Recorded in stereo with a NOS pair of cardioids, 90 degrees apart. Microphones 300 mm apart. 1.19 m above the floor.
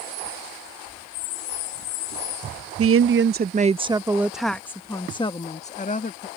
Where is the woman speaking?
50° right; by 6.3 s 30° left.